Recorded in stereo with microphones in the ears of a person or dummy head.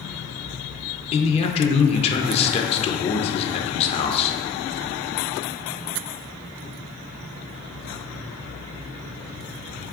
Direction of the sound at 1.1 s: 30° left (ahead or behind).